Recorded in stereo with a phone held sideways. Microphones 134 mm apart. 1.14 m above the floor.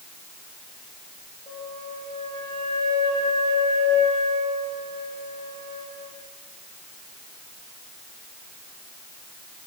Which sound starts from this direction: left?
A flute, at 1.5 s.